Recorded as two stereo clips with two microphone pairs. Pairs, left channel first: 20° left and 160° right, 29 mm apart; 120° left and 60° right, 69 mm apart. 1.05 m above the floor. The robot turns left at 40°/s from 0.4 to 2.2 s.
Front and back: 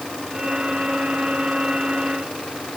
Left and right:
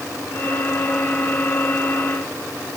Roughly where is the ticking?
No ticking in this recording.